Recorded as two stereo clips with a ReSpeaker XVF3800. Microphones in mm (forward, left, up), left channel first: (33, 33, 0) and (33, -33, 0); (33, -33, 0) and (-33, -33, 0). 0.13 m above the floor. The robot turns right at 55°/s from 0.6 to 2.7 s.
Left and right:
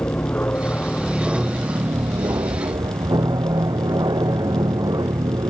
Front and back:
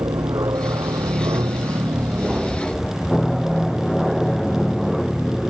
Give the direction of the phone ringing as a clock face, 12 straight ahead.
No phone ringing in this recording.